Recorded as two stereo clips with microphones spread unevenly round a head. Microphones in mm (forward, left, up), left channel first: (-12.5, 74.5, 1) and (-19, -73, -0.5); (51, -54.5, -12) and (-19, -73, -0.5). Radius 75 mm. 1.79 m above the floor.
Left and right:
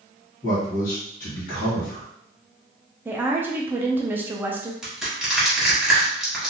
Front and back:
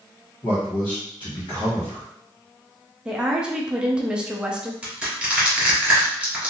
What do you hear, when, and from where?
0.4 s a man speaking: 55° left, 1.7 m
3.0 s a woman speaking: 150° right, 0.5 m
4.8 s crushing: straight behind, 1.7 m